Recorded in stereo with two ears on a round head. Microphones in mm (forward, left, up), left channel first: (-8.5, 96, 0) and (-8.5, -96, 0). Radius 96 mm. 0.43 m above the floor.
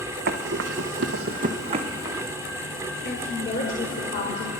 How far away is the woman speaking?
About 1.7 m.